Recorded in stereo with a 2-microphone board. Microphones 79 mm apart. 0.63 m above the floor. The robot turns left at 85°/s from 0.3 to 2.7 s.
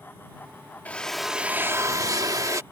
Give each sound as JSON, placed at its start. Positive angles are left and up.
{"t": 0.8, "sound": "a drill", "azimuth_deg": 30}